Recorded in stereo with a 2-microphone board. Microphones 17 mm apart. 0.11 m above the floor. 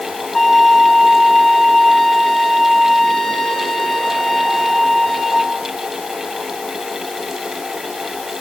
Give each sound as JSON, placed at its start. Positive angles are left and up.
{"t": 0.3, "sound": "a violin", "side_deg": 20, "distance_m": 6.5}